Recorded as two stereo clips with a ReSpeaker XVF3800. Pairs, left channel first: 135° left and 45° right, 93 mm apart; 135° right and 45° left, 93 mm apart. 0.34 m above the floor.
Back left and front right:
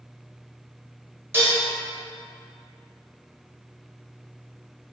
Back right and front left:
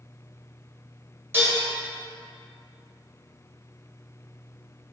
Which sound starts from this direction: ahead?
Dishes clattering, at 1.3 s.